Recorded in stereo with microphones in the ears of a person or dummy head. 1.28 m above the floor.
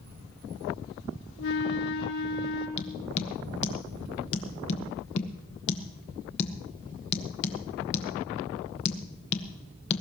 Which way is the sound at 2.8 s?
35° left (ahead or behind).